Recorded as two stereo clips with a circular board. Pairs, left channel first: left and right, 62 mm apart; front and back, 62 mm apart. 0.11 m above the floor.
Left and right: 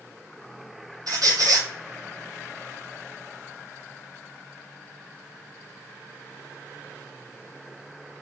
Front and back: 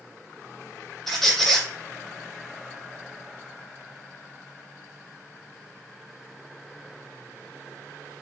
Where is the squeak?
85° right, 0.5 m.